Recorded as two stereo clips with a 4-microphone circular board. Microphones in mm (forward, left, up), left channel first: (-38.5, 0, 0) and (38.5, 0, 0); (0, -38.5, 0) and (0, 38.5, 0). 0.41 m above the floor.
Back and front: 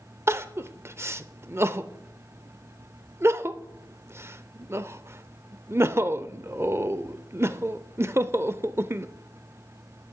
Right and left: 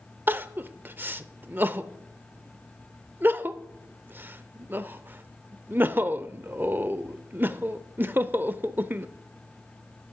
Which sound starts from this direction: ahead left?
Crying, at 0.3 s.